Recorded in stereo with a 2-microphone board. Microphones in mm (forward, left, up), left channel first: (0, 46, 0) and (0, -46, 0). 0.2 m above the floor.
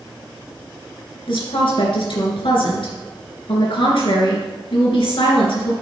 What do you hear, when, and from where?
1.3 s a woman speaking: 65° left (ahead or behind), 2.5 m